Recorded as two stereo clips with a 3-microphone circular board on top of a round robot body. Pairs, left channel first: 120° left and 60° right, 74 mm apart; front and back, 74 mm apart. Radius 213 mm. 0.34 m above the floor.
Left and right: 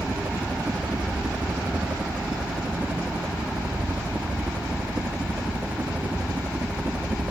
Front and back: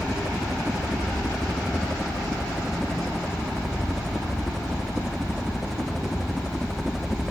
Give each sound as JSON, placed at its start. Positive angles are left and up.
{"t": 0.0, "sound": "a helicopter", "azimuth_deg": -90}